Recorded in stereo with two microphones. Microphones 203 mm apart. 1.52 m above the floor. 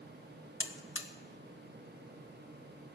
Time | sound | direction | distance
0.6 | a buzzer | 80° left | 1.2 m